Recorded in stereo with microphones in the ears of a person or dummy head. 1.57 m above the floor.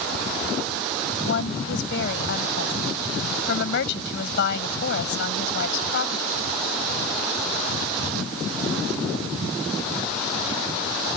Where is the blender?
I don't hear a blender.